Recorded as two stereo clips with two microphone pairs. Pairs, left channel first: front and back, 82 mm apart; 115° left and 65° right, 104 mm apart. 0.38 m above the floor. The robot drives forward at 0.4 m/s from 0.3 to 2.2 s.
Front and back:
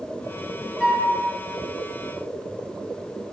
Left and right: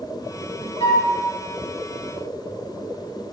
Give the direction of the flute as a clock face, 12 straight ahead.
9 o'clock.